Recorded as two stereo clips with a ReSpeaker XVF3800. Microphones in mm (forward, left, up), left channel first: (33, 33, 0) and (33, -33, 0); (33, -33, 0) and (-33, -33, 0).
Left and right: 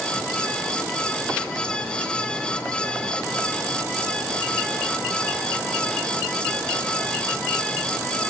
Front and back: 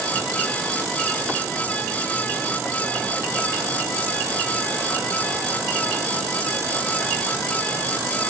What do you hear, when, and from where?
Only background noise.